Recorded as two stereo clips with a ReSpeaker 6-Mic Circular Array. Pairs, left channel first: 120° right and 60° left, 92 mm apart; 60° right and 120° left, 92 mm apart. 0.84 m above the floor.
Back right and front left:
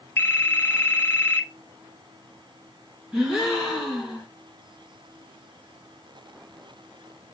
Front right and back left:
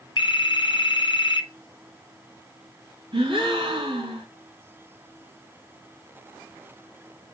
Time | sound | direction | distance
0.2 | a phone ringing | 60° right | 0.5 m
3.1 | a gasp | 145° left | 3.5 m